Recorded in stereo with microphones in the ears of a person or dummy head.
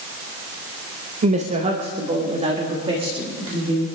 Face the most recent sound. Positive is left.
turn(degrees=-20)  # may be behind; listen again after turning